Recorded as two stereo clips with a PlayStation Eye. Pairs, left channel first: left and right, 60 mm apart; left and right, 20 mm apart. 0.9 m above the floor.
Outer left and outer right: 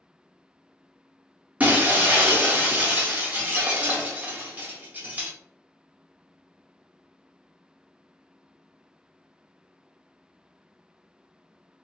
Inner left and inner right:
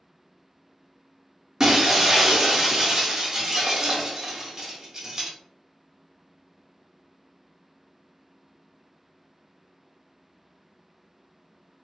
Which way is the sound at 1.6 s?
25° right (ahead or behind).